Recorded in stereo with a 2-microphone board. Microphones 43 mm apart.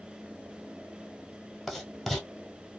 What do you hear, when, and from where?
1.7 s writing: centre (ahead or behind), 0.9 m